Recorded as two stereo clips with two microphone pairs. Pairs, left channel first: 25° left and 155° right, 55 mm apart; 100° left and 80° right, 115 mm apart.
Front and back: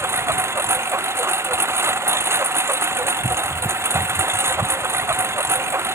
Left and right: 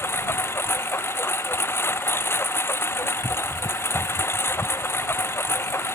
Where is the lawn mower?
170° left.